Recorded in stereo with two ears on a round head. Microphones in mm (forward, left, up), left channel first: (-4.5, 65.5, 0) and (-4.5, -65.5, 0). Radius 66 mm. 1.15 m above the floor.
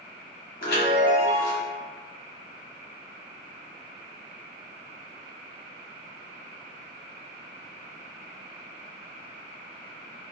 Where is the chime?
70° left (ahead or behind), 1.2 m.